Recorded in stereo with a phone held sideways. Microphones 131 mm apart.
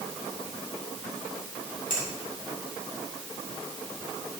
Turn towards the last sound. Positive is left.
turn(degrees=75)  # may be behind; listen again after turning